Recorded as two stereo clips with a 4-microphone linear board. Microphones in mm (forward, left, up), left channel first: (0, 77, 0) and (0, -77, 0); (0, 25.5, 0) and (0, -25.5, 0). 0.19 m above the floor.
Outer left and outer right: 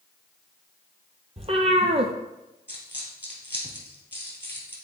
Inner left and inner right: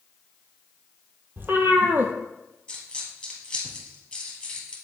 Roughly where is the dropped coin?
Centre.